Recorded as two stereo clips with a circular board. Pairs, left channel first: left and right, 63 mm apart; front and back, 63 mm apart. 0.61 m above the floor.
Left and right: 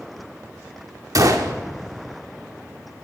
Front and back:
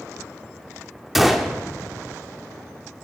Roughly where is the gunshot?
Right.